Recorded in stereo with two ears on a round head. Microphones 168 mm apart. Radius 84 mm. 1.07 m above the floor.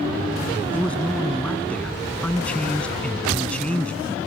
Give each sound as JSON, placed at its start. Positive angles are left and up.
{"t": 0.7, "sound": "a man speaking", "side_deg": 5}